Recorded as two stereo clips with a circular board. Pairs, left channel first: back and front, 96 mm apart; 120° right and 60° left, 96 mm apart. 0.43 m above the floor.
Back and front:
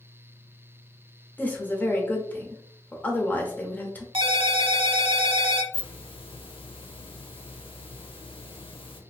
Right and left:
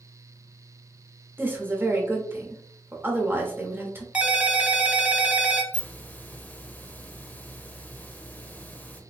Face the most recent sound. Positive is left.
turn(degrees=170)